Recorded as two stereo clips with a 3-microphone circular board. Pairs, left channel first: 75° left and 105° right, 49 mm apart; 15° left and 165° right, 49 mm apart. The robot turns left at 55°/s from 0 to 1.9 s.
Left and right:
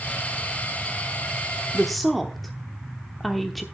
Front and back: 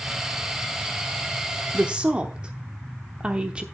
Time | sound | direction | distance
1.7 | a woman speaking | 165° left | 0.9 m